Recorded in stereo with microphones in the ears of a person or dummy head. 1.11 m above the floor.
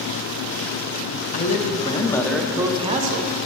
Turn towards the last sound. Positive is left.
turn(degrees=-50)  # may be behind; listen again after turning